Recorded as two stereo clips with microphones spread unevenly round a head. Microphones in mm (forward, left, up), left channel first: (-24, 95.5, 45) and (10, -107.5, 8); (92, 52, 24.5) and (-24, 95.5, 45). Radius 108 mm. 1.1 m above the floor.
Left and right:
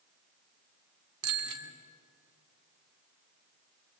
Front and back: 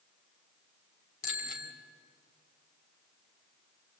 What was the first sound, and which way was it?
A bicycle bell, 65° right.